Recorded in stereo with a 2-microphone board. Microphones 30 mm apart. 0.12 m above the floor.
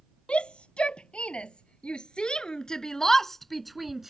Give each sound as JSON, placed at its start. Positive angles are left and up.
{"t": 0.3, "sound": "a shout", "side_deg": 40}